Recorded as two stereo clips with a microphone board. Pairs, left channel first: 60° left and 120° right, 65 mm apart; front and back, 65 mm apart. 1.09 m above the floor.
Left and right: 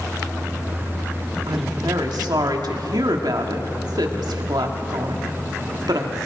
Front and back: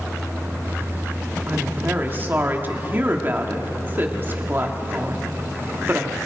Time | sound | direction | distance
1.5 | a woman speaking | 120° right | 1.8 m